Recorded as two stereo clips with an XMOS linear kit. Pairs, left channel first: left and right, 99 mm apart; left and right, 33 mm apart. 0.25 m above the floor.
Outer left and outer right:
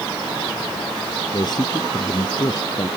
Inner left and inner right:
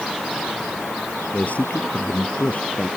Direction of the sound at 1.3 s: 45° left (ahead or behind).